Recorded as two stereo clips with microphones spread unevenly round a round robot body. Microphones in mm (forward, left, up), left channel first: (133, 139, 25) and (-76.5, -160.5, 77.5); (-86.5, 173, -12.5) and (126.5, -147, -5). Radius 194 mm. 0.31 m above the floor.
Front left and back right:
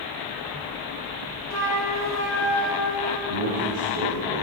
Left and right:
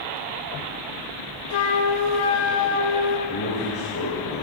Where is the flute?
140° left, 2.5 m.